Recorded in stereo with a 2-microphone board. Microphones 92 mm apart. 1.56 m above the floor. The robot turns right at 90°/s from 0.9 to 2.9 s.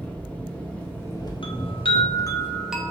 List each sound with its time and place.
0.0 s an engine running: 15° left, 0.7 m; by 2.9 s 165° right, 0.7 m
1.4 s a chime: 70° left, 0.5 m; by 2.9 s 160° right, 0.5 m